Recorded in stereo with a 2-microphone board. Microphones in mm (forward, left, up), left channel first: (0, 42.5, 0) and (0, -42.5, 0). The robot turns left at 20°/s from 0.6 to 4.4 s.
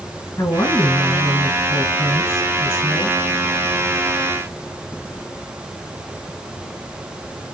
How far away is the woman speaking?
About 1.7 m.